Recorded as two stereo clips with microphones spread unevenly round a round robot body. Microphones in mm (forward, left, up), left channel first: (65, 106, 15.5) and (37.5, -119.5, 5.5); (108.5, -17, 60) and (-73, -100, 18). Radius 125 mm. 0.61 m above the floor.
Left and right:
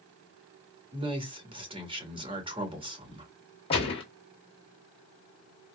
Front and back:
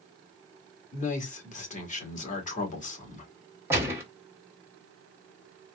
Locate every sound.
0.9 s a man speaking: 30° right, 1.8 m
3.7 s a gunshot: 145° left, 1.1 m